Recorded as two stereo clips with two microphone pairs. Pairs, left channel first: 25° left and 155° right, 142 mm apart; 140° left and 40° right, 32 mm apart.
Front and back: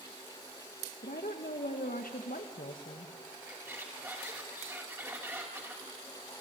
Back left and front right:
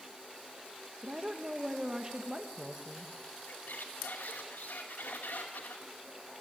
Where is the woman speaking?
30° left, 1.7 m.